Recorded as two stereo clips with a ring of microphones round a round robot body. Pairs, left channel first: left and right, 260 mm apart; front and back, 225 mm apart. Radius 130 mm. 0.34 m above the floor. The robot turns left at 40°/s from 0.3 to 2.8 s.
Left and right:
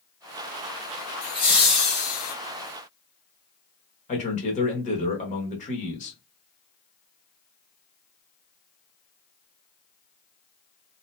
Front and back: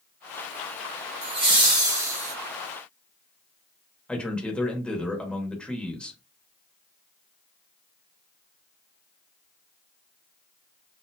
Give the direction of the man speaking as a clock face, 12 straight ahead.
9 o'clock.